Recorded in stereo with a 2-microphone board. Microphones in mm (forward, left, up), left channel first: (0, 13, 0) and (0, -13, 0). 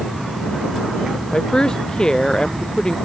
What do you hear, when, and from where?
1.3 s a woman speaking: 30° left (ahead or behind)